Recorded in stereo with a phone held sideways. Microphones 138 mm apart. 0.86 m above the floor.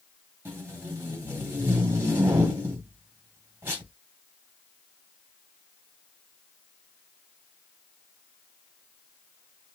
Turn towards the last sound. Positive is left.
turn(degrees=-15)  # may be behind; listen again after turning